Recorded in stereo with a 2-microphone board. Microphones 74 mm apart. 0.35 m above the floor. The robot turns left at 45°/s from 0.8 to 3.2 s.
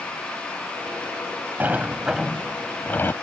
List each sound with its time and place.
1.6 s a sliding door: 150° right; by 3.1 s 140° left